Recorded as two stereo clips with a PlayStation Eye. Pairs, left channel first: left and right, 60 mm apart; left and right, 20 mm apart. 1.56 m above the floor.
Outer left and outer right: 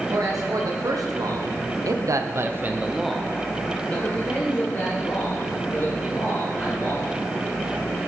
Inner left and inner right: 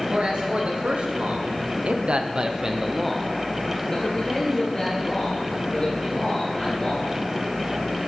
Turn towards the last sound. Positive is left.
turn(degrees=45)  # may be behind; listen again after turning